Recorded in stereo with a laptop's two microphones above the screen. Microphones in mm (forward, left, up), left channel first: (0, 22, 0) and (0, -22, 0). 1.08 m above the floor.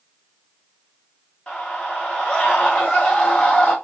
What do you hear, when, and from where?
1.5 s a scream: 20° left (ahead or behind), 1.2 m